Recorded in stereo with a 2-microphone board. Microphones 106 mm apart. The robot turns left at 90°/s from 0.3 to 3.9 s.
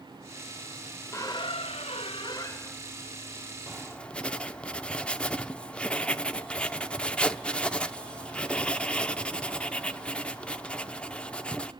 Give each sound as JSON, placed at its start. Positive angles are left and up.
{"t": 1.1, "sound": "a squeak", "azimuth_deg": 155, "distance_m": 0.9}
{"t": 3.7, "sound": "writing", "side_deg": -10, "distance_m": 0.6}